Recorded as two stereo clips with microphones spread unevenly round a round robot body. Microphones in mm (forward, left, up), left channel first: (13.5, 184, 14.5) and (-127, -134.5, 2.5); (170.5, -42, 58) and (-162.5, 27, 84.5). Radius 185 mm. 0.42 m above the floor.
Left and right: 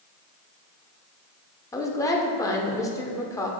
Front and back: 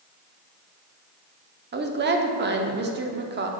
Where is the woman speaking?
140° left, 0.8 m.